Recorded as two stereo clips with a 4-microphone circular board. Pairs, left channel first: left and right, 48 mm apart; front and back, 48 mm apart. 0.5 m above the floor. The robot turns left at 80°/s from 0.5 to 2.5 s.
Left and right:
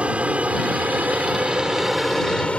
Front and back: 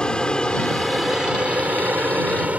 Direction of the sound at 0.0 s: 55° right.